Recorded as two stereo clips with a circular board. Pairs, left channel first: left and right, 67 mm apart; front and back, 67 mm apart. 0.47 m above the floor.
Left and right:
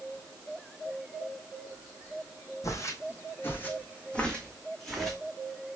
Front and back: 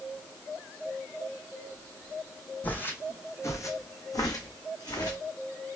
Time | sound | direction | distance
2.6 | footsteps | 65° left | 1.0 m